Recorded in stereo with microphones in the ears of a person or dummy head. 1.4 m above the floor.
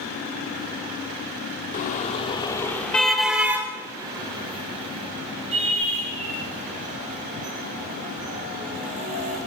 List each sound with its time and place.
1.7 s a car horn: 45° left (ahead or behind), 2 m; by 9.4 s 45° right (ahead or behind), 9.5 m